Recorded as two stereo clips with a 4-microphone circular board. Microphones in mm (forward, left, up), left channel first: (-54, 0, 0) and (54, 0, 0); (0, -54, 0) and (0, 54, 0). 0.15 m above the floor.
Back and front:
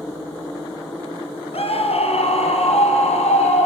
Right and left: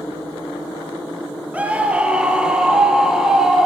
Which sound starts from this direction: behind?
A scream, at 1.5 s.